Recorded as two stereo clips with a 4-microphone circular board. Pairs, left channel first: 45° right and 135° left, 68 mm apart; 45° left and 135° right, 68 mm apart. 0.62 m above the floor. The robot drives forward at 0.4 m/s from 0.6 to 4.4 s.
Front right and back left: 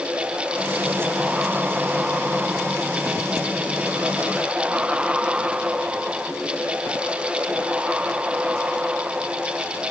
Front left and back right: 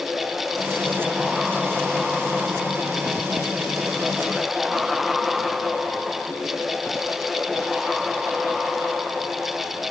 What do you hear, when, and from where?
Only background noise.